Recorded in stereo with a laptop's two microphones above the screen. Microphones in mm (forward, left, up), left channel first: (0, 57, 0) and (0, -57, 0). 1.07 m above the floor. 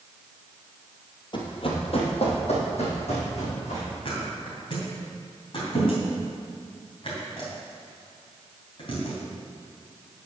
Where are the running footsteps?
45° left (ahead or behind), 1.6 m; by 3.9 s 65° left (ahead or behind), 4.5 m.